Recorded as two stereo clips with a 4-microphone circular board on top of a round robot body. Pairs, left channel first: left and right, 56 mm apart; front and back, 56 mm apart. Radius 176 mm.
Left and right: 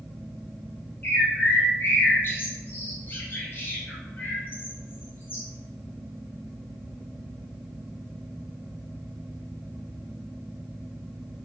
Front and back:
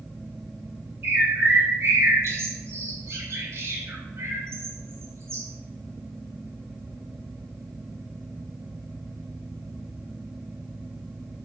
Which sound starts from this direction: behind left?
A bird, at 1.0 s.